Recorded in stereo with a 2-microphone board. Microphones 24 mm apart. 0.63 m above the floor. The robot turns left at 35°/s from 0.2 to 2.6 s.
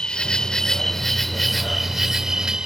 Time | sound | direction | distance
0.0 | an insect | 40° left | ?